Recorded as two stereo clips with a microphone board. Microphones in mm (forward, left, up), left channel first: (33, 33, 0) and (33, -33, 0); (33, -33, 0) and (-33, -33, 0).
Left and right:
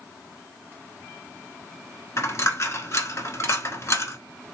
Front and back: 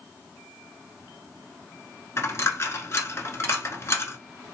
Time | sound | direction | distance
2.2 | a dropped coin | 45° left | 0.8 m